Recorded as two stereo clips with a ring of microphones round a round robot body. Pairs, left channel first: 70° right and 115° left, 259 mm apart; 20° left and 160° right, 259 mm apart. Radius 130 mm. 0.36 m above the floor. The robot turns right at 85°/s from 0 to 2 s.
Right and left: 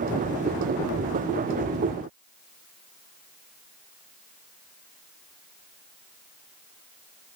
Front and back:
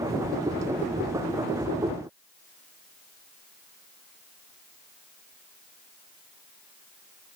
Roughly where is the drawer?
No drawer in this recording.